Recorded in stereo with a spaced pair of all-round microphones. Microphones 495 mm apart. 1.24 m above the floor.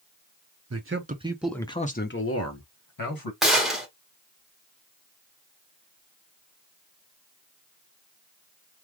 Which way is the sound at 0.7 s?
30° right (ahead or behind).